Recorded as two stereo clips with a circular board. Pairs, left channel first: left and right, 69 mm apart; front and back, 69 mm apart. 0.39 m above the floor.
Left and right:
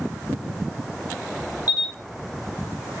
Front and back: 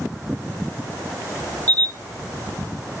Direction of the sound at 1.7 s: 65° left.